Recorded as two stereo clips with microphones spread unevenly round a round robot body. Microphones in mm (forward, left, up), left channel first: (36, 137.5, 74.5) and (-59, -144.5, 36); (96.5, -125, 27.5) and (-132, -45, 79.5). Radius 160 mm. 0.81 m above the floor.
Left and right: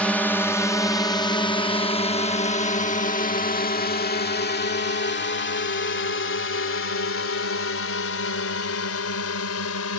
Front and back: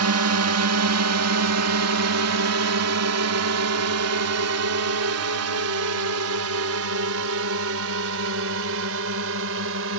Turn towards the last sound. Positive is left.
turn(degrees=115)